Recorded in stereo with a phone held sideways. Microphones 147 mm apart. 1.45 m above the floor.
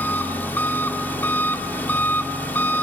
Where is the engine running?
15° left (ahead or behind), 2.5 m.